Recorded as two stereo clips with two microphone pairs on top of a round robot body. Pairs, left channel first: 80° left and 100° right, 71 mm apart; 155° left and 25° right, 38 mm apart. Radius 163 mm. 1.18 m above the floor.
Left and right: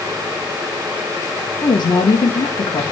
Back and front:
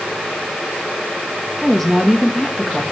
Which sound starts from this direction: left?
A woman speaking, at 1.6 s.